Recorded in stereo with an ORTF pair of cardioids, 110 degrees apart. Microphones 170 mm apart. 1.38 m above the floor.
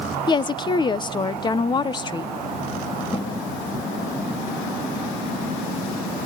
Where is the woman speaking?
25° left, 1.0 m.